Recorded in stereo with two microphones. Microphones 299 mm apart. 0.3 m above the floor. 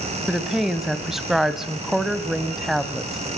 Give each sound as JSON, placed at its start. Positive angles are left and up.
{"t": 0.3, "sound": "a woman speaking", "side_deg": 0, "distance_m": 1.5}